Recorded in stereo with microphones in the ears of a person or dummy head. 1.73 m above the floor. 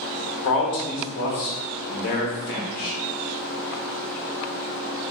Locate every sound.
0.4 s a man speaking: 50° left (ahead or behind), 0.9 m